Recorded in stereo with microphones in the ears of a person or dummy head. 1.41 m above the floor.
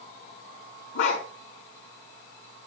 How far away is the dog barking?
About 6 m.